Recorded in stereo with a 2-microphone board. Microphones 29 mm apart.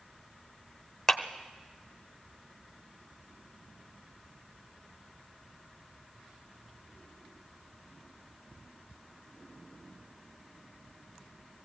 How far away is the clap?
About 1.1 m.